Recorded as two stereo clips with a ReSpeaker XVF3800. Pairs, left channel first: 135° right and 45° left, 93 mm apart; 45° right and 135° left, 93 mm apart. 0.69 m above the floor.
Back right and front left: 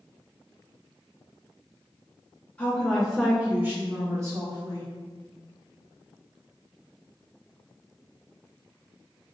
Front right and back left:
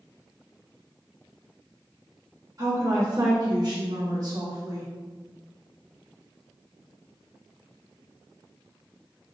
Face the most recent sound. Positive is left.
turn(degrees=90)